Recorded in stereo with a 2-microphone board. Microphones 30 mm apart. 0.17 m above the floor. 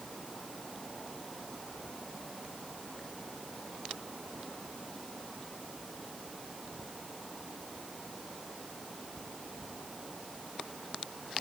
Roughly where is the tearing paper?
No tearing paper in this recording.